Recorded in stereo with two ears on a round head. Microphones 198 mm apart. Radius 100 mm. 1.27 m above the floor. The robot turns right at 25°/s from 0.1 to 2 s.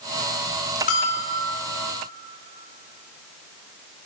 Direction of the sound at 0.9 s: 40° left (ahead or behind).